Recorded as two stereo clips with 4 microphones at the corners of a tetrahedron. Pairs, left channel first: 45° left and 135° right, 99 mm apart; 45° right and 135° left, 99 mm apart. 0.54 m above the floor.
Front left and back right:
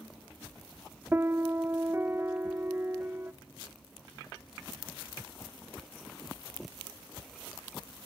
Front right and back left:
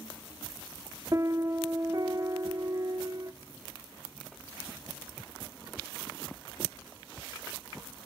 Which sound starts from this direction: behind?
A piano, at 1.1 s.